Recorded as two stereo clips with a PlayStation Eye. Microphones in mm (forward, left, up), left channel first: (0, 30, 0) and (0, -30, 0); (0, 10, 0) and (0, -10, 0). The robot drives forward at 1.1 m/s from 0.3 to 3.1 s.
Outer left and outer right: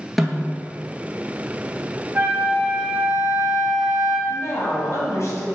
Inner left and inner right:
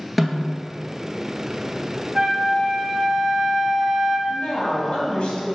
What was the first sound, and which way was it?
A snare drum, centre (ahead or behind).